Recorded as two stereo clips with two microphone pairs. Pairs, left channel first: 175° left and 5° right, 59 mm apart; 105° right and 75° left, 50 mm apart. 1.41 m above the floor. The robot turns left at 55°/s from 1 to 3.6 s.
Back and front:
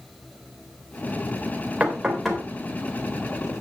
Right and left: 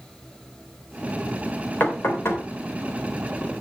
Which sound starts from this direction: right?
Knocking, at 1.8 s.